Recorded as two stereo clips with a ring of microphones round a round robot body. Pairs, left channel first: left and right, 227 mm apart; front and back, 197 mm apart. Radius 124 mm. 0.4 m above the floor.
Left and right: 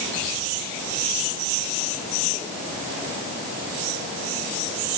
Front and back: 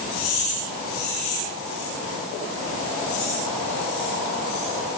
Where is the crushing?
No crushing in this recording.